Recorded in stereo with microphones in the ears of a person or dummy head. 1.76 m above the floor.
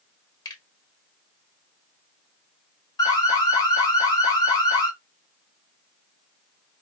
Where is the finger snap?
20° left (ahead or behind), 1.3 m.